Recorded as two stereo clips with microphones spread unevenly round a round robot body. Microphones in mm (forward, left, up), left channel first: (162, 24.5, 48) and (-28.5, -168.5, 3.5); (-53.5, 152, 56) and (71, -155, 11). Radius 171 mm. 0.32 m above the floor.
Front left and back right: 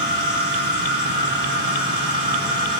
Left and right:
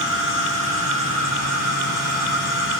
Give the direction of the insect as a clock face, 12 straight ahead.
7 o'clock.